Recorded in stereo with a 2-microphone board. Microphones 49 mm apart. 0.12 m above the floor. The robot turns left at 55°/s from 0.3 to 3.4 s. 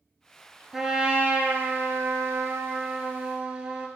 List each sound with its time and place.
0.7 s a trumpet: 10° right, 1.0 m; by 3.9 s 155° right, 1.0 m